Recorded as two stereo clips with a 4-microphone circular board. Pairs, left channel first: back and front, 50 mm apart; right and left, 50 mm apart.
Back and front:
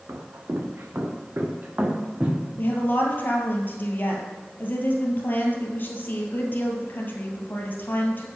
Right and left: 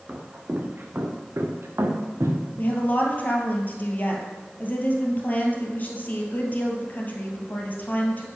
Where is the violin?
No violin in this recording.